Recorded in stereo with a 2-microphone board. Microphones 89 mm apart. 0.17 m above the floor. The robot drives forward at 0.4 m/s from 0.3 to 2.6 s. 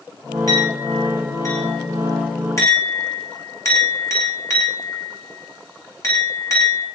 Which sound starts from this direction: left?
A clink, at 0.5 s.